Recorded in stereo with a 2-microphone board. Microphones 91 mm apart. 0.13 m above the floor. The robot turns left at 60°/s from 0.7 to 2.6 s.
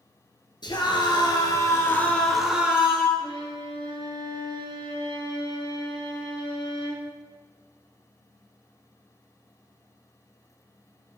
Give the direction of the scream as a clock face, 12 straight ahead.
9 o'clock.